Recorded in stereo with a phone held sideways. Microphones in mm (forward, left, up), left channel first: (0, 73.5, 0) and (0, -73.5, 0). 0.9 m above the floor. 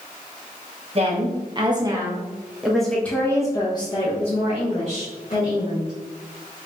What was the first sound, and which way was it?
A woman speaking, 40° right (ahead or behind).